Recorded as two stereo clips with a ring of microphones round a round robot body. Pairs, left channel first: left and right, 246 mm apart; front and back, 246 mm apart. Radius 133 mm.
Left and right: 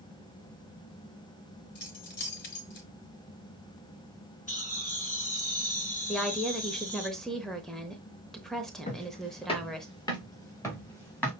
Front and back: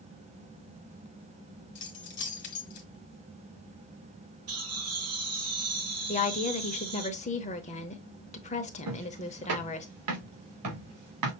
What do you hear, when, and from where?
1.8 s keys jangling: 45° left, 1.5 m
4.5 s laughter: 150° left, 4.5 m
6.1 s a woman speaking: 5° left, 0.9 m
8.9 s footsteps: 155° left, 2.5 m; by 11.3 s 175° left, 3.5 m